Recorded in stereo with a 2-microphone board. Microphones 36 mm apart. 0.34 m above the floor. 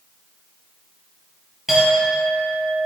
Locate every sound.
1.7 s a clink: 5° right (ahead or behind), 5.5 m